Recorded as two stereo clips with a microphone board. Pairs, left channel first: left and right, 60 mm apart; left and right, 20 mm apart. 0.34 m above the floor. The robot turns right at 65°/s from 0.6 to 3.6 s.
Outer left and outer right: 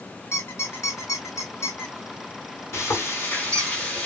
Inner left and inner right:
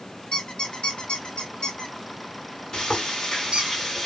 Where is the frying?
85° left, 1.8 m; by 4.1 s 145° left, 1.8 m.